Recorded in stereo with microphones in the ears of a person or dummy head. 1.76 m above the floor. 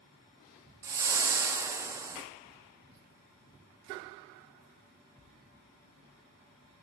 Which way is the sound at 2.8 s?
55° right (ahead or behind).